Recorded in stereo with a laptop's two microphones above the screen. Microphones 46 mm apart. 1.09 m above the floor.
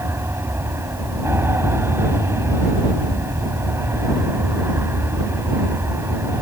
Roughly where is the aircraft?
Right.